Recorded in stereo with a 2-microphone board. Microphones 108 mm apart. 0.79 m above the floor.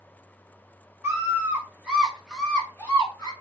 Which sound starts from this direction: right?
A scream, at 1.0 s.